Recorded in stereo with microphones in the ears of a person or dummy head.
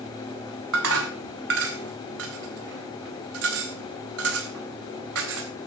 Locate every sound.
0.7 s dishes clattering: 85° right, 4 m